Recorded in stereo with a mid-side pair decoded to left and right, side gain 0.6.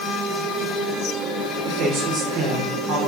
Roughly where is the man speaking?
Ahead right.